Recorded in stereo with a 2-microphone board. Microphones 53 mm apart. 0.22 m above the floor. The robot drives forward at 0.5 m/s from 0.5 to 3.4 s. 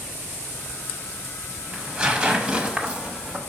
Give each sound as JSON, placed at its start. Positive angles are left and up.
{"t": 1.7, "sound": "tearing paper", "side_deg": -20, "distance_m": 1.1}